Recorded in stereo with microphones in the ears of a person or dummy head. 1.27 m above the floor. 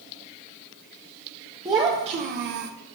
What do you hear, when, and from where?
1.6 s a child speaking: 20° right (ahead or behind), 0.8 m; by 2.7 s 65° right (ahead or behind), 0.6 m